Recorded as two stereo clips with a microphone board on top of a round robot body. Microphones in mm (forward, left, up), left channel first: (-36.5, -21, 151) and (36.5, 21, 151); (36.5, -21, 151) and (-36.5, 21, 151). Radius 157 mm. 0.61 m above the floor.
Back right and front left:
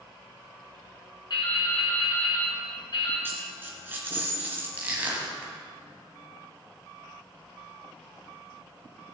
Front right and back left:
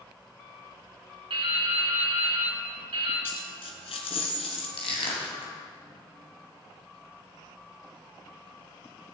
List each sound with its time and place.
1.3 s dripping: 170° left, 4 m
3.2 s a dropped coin: 40° right, 1.8 m
4.8 s crushing: 45° right, 3 m